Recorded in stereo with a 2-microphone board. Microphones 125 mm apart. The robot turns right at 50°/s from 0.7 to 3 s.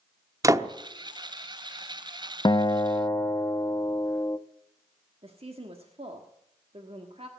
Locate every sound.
0.4 s a door slam: 25° right (ahead or behind), 0.8 m
2.5 s a guitar: 35° left (ahead or behind), 0.6 m; by 4.4 s 20° left (ahead or behind), 0.6 m
5.2 s a woman speaking: 50° right (ahead or behind), 1.5 m